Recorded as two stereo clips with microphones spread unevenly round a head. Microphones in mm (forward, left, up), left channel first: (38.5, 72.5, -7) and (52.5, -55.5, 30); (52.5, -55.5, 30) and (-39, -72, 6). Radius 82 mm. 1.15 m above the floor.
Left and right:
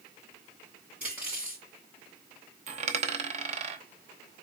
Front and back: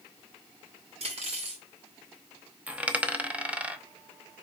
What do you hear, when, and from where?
1.0 s cutlery clinking: 160° right, 2.5 m
2.7 s a dropped coin: 85° right, 0.8 m